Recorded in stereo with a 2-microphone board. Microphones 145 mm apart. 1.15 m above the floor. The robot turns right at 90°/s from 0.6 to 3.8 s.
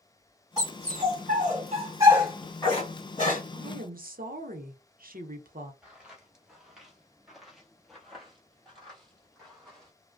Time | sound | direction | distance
0.6 | a dog barking | 25° right (ahead or behind) | 2.0 m
3.5 | a woman speaking | 65° right (ahead or behind) | 0.7 m
5.8 | footsteps | 5° right (ahead or behind) | 1.2 m